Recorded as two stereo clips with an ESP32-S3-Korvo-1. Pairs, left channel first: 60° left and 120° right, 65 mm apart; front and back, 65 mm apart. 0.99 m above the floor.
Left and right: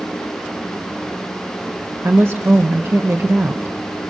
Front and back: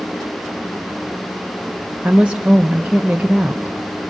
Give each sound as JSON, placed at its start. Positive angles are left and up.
{"t": 2.0, "sound": "a woman speaking", "azimuth_deg": -115, "distance_m": 0.9}